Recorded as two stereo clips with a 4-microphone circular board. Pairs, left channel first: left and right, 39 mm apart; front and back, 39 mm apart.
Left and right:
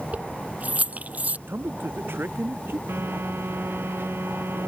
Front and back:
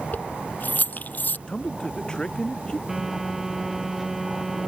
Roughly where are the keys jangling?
Ahead right.